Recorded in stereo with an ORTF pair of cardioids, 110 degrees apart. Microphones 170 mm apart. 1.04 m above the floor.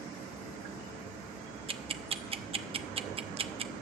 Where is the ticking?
35° right, 0.8 m.